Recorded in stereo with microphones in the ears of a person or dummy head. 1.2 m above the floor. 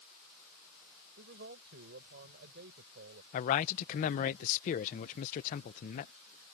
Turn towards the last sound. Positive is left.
turn(degrees=45)  # may be behind; listen again after turning